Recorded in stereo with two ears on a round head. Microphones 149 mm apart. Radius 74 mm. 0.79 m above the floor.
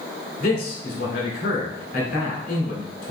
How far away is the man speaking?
About 1.8 m.